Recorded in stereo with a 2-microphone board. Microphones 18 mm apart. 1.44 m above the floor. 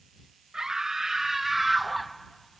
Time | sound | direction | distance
0.5 | a scream | 40° right (ahead or behind) | ?